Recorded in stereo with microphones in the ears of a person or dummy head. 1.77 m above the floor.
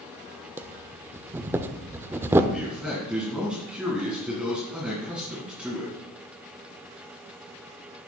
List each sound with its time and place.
0.6 s breathing: 15° right (ahead or behind), 0.6 m
2.5 s a man speaking: 5° right (ahead or behind), 1.9 m